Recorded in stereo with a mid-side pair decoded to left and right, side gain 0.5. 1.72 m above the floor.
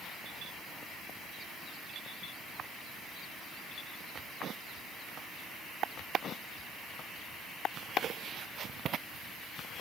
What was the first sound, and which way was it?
Only background noise.